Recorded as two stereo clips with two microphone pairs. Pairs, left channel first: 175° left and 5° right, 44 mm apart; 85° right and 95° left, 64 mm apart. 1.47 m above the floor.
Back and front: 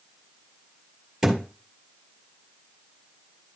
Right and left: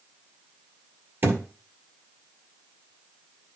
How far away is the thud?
About 1.9 m.